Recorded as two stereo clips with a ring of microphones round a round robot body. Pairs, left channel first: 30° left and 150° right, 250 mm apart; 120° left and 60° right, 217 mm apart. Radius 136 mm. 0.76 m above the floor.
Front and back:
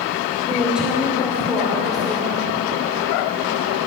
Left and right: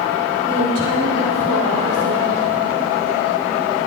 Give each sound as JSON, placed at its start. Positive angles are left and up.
{"t": 0.4, "sound": "a woman speaking", "azimuth_deg": -60, "distance_m": 3.5}